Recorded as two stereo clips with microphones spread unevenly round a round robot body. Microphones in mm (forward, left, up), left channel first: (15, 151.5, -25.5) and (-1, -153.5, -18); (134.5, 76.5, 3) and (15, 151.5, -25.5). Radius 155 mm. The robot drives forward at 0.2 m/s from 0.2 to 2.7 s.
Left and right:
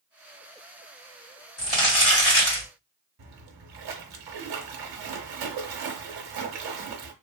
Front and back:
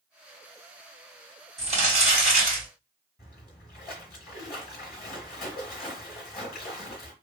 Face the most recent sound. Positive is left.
turn(degrees=-90)